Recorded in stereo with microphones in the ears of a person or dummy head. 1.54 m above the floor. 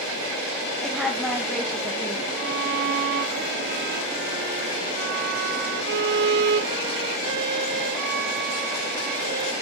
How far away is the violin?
About 1.5 m.